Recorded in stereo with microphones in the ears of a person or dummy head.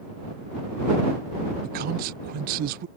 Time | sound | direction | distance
1.6 | a man speaking | 50° right (ahead or behind) | ?